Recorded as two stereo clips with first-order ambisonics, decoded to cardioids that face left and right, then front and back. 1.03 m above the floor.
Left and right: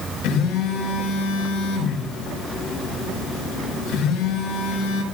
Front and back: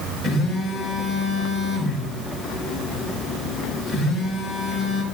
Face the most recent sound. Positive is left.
turn(degrees=100)